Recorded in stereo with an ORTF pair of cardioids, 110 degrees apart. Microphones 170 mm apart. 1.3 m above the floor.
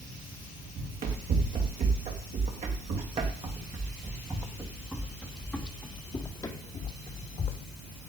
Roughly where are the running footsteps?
Ahead right.